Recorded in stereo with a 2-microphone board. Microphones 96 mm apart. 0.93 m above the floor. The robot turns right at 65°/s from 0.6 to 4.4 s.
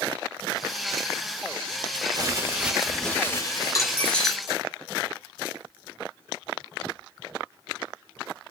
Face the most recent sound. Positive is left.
turn(degrees=-175)